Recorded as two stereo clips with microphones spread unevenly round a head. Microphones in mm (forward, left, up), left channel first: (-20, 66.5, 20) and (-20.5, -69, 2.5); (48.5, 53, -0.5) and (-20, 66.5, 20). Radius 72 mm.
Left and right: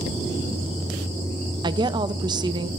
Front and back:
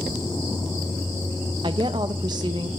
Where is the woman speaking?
150° right, 0.6 m.